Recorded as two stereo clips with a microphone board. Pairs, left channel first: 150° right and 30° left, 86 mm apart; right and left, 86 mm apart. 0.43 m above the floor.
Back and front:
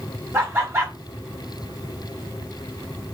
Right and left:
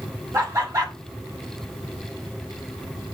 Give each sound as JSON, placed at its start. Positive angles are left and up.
{"t": 0.3, "sound": "laughter", "azimuth_deg": 65, "distance_m": 0.9}